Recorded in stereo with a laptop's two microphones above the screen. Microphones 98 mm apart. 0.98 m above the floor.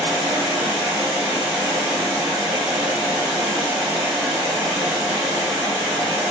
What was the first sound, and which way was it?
Running water, 5° right (ahead or behind).